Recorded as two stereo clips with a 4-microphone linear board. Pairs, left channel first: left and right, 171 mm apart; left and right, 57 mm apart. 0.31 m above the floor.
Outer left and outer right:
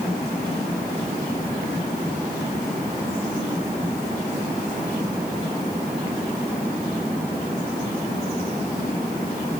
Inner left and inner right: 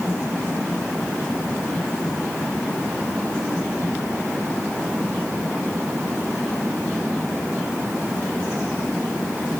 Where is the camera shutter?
No camera shutter in this recording.